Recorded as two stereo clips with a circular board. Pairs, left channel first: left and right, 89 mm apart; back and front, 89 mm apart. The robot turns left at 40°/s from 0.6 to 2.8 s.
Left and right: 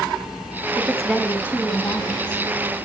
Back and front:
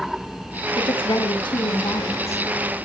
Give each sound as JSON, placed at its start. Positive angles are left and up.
{"t": 0.8, "sound": "a woman speaking", "azimuth_deg": -155, "distance_m": 3.0}